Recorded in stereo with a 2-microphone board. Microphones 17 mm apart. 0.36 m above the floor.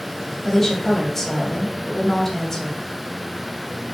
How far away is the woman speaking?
About 2.5 m.